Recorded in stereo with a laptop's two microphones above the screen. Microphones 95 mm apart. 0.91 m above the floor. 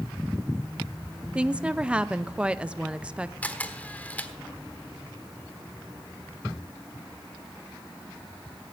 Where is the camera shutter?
15° left (ahead or behind), 1.3 m.